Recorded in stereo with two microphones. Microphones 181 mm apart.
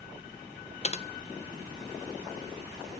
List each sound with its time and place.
0.8 s typing on a keyboard: 35° left (ahead or behind), 0.6 m